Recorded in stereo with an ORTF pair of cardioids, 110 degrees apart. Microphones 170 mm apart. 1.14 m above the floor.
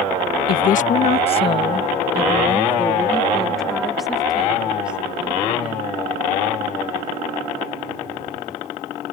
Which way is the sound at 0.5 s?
60° left.